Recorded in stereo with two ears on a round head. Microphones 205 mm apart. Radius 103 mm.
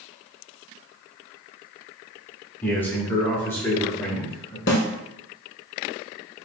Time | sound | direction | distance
2.6 | a man speaking | 10° left (ahead or behind) | 1.3 m
4.7 | a snare drum | 50° left (ahead or behind) | 0.9 m